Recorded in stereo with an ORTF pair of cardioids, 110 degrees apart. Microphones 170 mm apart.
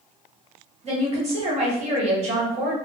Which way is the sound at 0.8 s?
40° right.